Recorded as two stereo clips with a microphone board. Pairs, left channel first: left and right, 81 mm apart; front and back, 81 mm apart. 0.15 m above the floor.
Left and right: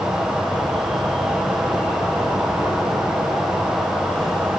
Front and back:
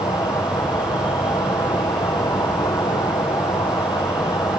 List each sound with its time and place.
0.0 s an insect: 5° left, 3 m